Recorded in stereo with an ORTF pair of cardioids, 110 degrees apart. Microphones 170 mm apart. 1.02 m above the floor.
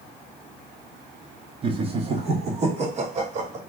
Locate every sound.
1.6 s laughter: 30° right, 1.3 m; by 3.6 s 40° right, 2.5 m